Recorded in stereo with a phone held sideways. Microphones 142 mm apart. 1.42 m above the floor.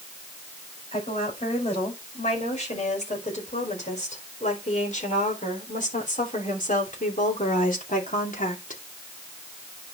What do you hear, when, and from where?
0.9 s a woman speaking: 55° left (ahead or behind), 6 m; by 8.8 s 85° left, 2.5 m